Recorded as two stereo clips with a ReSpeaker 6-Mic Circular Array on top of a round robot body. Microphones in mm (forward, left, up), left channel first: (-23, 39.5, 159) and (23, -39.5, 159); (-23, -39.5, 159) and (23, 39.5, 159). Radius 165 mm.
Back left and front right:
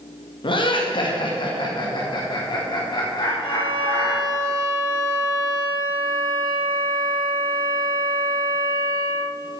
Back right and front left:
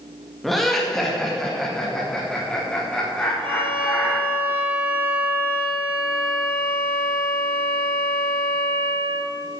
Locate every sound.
0.4 s laughter: 150° left, 2 m; by 4.2 s 160° left, 4.5 m
3.4 s a violin: 85° left, 3 m